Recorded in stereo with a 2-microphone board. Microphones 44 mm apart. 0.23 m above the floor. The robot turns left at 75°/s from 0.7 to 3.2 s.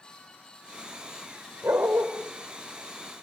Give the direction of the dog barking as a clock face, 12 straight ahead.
3 o'clock.